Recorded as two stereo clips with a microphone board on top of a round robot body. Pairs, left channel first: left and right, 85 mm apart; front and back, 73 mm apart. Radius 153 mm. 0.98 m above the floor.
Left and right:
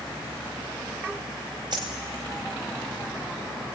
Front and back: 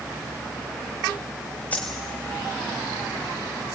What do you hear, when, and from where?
1.7 s a dropped coin: 65° right, 0.8 m